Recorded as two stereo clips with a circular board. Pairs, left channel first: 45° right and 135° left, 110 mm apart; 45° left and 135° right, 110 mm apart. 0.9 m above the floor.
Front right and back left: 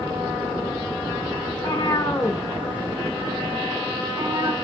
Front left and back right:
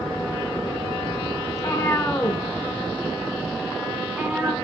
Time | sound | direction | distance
1.5 | a cat meowing | 10° right | 1.1 m